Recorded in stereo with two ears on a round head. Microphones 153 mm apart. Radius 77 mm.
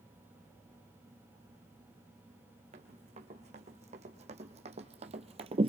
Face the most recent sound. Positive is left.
turn(degrees=-35)  # may be behind; listen again after turning